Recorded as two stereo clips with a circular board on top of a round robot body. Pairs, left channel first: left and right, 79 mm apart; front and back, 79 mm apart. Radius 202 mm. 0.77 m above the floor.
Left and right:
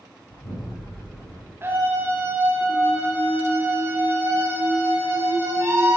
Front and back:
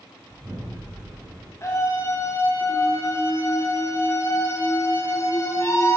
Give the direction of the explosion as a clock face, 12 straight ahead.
8 o'clock.